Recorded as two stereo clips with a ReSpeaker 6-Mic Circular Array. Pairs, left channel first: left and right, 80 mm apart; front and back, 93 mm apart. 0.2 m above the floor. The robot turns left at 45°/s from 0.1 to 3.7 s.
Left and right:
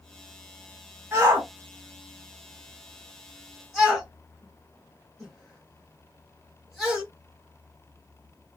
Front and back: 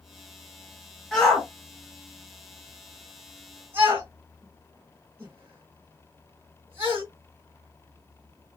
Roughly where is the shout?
Right.